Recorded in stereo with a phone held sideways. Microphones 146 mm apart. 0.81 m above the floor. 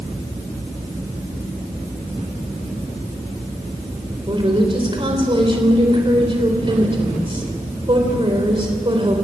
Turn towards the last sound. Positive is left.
turn(degrees=-35)  # may be behind; listen again after turning